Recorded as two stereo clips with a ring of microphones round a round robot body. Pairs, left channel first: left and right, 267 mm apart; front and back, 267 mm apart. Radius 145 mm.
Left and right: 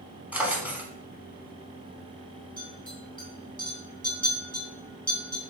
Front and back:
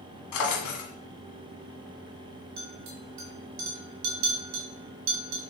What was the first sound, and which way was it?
A drawer, 5° right.